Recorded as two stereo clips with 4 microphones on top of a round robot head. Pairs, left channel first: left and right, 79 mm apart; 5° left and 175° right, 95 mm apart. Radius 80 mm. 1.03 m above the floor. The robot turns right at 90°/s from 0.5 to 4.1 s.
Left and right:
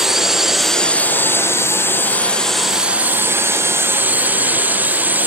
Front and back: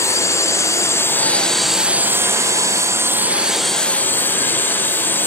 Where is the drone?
10° right; by 5.3 s 45° right.